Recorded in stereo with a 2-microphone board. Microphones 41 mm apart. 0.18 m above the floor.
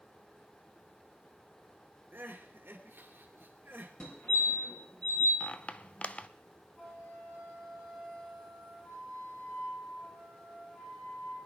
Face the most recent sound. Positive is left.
turn(degrees=20)  # may be behind; listen again after turning